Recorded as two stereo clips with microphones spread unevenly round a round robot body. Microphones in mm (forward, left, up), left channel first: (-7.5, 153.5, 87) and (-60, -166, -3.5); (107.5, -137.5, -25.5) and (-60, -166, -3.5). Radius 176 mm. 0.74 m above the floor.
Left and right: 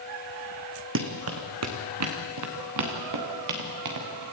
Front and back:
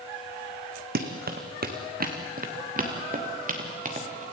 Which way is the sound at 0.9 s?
155° right.